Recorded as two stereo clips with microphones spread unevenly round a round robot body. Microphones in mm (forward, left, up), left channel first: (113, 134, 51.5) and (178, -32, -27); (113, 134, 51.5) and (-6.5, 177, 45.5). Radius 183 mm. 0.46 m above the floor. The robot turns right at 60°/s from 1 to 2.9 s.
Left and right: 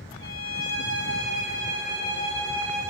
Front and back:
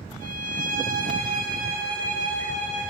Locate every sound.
0.2 s a violin: 150° left, 5.5 m; by 2.9 s 95° right, 5.5 m